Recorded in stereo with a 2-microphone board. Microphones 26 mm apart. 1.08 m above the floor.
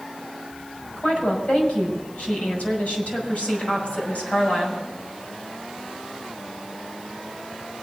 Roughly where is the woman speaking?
Left.